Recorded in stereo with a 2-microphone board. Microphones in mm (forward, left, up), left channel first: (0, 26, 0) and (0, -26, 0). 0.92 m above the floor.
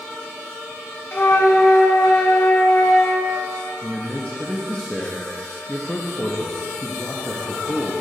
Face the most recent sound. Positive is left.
turn(degrees=25)  # may be behind; listen again after turning